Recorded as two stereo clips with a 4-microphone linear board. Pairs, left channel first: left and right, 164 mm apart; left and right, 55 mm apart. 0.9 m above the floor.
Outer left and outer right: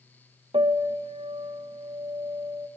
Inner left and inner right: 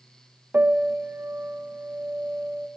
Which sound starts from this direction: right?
A piano, at 0.5 s.